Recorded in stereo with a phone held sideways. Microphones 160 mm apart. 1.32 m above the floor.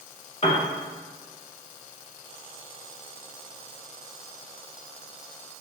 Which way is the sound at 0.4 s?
40° left (ahead or behind).